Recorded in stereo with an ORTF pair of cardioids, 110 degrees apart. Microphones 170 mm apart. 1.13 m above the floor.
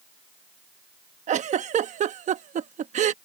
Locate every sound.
1.3 s a giggle: 45° right